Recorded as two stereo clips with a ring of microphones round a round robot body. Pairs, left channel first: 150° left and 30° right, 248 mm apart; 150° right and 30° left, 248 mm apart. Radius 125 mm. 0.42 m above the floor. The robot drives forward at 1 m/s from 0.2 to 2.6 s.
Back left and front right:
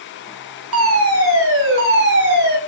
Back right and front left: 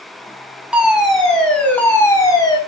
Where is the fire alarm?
55° right, 5 m; by 2.6 s 80° right, 4.5 m.